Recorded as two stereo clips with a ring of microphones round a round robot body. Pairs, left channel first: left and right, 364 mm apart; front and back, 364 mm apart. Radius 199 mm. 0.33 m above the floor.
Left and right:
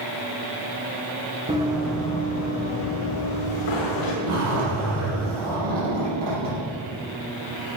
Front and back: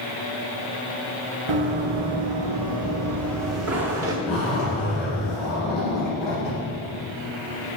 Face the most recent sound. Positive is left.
turn(degrees=-90)